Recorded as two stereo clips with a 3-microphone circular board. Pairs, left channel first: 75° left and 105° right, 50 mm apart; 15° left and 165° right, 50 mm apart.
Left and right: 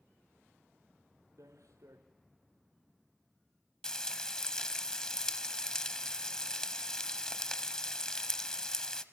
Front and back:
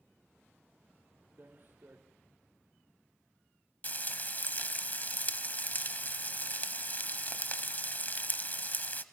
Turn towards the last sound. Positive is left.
turn(degrees=5)